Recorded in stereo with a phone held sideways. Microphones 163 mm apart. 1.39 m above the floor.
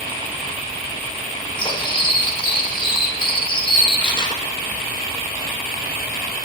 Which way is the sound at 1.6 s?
30° left (ahead or behind).